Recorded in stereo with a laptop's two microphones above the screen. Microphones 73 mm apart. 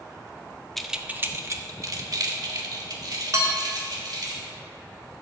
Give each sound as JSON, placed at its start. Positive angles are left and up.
{"t": 0.8, "sound": "keys jangling", "side_deg": 5, "distance_m": 0.5}
{"t": 3.3, "sound": "dishes clattering", "side_deg": -50, "distance_m": 1.5}